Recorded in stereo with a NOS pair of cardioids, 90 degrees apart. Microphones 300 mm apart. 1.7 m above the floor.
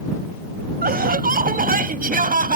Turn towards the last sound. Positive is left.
turn(degrees=-25)